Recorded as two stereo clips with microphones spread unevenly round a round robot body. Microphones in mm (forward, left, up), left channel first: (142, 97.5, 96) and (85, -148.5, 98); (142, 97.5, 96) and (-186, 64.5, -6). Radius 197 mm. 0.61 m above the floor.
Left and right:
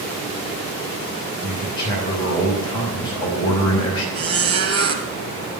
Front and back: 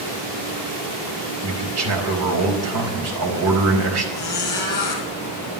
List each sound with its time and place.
1.4 s a man speaking: 155° left, 4 m
4.2 s a squeak: 70° right, 2.5 m